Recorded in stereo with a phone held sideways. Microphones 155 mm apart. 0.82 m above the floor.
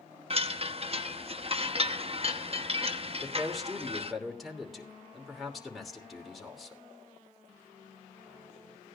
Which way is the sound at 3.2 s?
Centre (ahead or behind).